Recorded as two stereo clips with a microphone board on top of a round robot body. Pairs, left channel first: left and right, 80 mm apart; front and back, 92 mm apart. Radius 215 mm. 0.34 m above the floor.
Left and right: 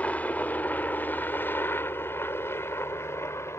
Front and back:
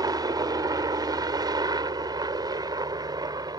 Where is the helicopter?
155° left; by 3.6 s 145° left.